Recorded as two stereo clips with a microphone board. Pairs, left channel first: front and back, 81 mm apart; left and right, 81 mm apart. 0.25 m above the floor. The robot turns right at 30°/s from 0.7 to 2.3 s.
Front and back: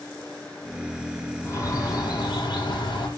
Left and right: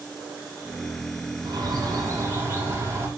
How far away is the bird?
About 5.5 m.